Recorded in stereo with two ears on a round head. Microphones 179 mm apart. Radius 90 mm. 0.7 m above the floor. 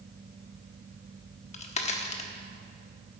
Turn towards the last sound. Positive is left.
turn(degrees=35)  # may be behind; listen again after turning